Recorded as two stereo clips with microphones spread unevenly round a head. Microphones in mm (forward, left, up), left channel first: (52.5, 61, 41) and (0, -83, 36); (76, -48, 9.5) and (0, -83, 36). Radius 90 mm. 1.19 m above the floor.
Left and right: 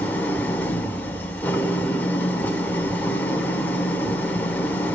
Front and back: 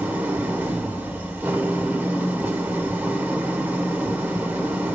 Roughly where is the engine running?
Behind left.